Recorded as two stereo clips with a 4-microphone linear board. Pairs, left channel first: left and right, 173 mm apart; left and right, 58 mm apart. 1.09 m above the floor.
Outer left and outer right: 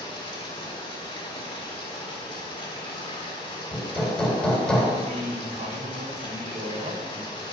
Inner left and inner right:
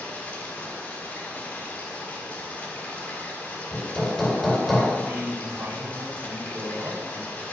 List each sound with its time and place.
0.0 s running water: 30° left (ahead or behind), 1.8 m
3.7 s hammering: 5° left (ahead or behind), 1.9 m
5.0 s a man speaking: 55° right (ahead or behind), 2.5 m